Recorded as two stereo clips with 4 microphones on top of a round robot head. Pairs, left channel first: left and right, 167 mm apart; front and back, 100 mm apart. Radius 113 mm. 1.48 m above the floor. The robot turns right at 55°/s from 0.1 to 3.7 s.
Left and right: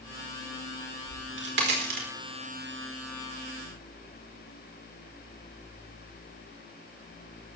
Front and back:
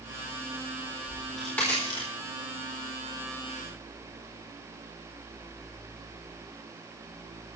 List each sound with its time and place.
1.1 s a crack: 110° right, 4.5 m; by 2.1 s 55° right, 4.5 m